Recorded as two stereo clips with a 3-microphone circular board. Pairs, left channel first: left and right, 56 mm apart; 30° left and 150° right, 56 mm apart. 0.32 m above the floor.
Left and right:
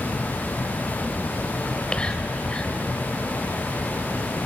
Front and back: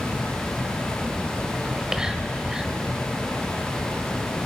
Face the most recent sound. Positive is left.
turn(degrees=145)